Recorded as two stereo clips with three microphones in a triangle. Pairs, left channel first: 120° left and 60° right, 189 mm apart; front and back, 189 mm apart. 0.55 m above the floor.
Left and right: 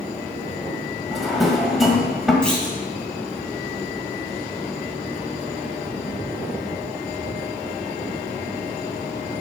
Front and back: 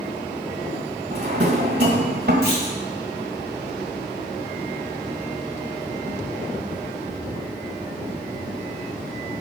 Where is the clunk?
155° right, 3 m.